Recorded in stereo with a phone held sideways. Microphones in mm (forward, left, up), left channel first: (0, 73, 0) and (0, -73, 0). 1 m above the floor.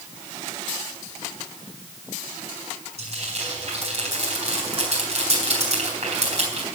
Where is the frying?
50° right (ahead or behind), 4 m.